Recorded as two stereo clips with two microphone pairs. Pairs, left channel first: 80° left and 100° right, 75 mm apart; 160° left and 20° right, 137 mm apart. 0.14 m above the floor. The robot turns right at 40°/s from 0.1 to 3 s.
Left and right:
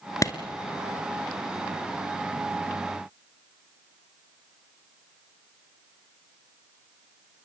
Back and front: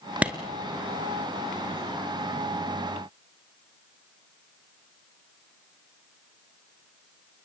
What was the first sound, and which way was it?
A clap, 55° left.